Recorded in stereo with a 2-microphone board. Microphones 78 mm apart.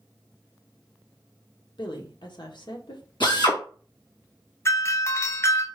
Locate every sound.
1.8 s a woman speaking: 80° left, 0.9 m
3.2 s a drill: 85° left, 2 m
4.7 s a doorbell: 35° left (ahead or behind), 0.5 m